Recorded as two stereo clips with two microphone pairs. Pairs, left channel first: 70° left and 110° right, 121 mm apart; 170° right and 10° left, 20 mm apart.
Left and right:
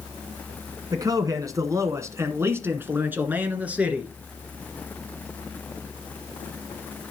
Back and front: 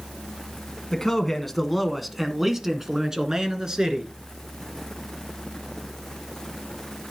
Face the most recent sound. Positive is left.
turn(degrees=-30)